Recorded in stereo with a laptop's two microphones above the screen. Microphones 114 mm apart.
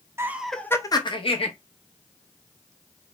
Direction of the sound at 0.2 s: 25° right (ahead or behind).